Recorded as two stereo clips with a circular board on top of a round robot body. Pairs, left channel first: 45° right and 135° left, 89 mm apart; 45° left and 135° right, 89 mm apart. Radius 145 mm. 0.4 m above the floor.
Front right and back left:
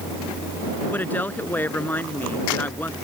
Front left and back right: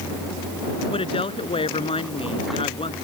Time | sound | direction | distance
0.9 | a woman speaking | 25° left | ?